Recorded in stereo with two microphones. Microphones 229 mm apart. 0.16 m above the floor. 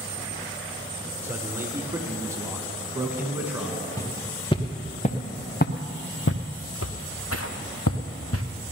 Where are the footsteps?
15° left (ahead or behind), 1.6 m; by 8.4 s 75° left (ahead or behind), 1.5 m.